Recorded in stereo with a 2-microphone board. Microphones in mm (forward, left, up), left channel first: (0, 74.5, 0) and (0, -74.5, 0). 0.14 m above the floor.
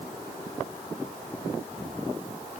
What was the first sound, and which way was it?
Only background noise.